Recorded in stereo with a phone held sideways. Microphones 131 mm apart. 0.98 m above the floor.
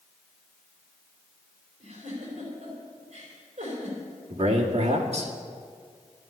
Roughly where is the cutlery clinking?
No cutlery clinking in this recording.